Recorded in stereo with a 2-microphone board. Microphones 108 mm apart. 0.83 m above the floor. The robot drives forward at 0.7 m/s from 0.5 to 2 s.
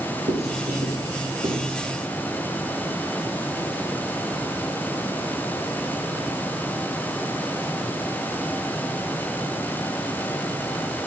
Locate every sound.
0.3 s writing: 80° right, 5 m; by 1.9 s 70° right (ahead or behind), 5.5 m